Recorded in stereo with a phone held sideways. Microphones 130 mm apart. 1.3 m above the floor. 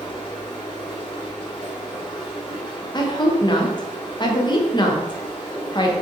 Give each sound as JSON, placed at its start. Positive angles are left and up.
{"t": 0.0, "sound": "running water", "side_deg": 40, "distance_m": 1.1}
{"t": 2.9, "sound": "a woman speaking", "side_deg": 35, "distance_m": 0.6}